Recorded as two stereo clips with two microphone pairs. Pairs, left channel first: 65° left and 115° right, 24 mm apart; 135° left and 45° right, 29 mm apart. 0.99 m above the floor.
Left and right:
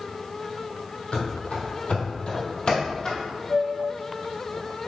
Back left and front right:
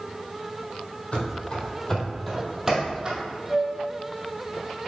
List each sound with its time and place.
1.1 s running footsteps: 90° left, 2 m; by 3.2 s 10° left, 2.0 m
3.5 s a flute: 35° left, 2.5 m